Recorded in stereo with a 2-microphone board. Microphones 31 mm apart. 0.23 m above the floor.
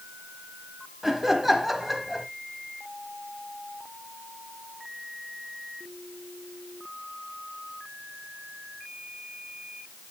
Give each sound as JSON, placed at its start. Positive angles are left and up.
{"t": 1.0, "sound": "laughter", "side_deg": -5, "distance_m": 1.0}